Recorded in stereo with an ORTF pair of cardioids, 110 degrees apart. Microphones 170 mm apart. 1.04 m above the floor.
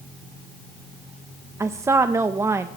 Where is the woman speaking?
15° right, 0.7 m.